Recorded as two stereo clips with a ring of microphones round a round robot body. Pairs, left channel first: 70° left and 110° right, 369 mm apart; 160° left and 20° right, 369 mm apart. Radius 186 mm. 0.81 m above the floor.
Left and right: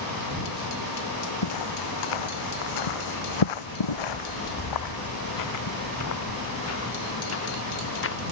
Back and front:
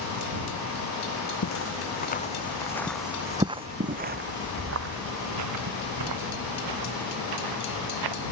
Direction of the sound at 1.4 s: 105° left.